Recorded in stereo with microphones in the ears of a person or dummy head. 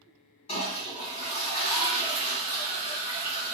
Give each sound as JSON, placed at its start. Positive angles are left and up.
{"t": 0.5, "sound": "a toilet flushing", "side_deg": 35, "distance_m": 1.8}